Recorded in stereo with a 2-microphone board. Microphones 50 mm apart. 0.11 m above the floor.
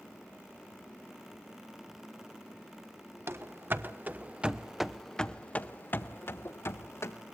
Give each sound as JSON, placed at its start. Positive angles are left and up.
{"t": 3.3, "sound": "running footsteps", "side_deg": -55, "distance_m": 1.4}